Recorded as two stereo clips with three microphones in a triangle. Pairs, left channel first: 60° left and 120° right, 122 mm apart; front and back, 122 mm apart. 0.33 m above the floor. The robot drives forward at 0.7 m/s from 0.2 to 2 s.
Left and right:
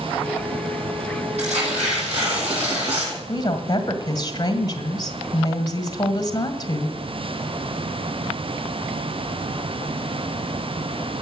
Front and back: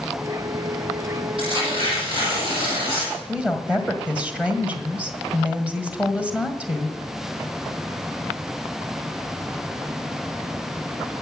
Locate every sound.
1.4 s tearing paper: 140° right, 9 m
3.3 s a woman speaking: 105° left, 1.7 m